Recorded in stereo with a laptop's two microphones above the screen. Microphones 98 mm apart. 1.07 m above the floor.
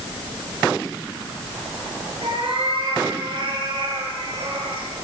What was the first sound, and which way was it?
A cat meowing, 85° right.